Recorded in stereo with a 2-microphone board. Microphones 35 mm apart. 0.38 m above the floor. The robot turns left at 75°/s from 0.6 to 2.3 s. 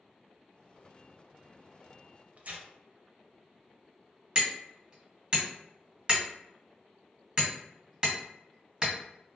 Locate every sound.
2.4 s tearing paper: 45° right (ahead or behind), 0.5 m
4.3 s hammering: 25° right (ahead or behind), 1.7 m